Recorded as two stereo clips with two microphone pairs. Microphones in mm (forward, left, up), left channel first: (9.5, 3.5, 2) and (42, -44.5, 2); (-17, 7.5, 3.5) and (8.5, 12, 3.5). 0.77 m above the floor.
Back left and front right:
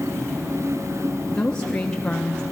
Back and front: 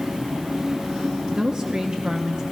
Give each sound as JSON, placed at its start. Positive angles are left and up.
{"t": 1.3, "sound": "a woman speaking", "azimuth_deg": 50, "distance_m": 0.7}